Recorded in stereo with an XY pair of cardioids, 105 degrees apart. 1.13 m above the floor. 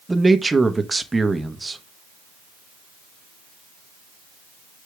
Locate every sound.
0.1 s a man speaking: 15° right, 1.1 m